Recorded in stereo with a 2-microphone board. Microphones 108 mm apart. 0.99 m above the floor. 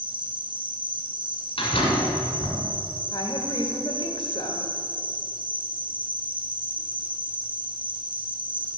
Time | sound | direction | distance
0.0 | an insect | 45° right (ahead or behind) | 0.7 m
1.6 | a door slam | 55° left (ahead or behind) | 2.5 m
3.1 | a woman speaking | 50° left (ahead or behind) | 1.5 m